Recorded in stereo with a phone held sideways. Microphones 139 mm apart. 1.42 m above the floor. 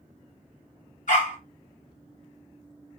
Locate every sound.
1.1 s a dog barking: 65° left (ahead or behind), 3 m